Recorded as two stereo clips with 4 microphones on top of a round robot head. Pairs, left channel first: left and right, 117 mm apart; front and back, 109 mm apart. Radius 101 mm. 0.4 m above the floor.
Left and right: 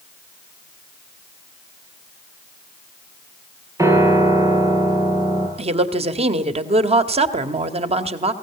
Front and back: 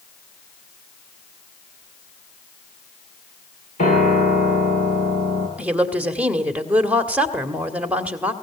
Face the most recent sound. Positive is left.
turn(degrees=-100)